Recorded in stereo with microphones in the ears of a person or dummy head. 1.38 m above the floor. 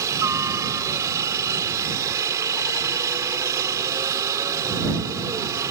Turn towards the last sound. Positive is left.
turn(degrees=-15)  # may be behind; listen again after turning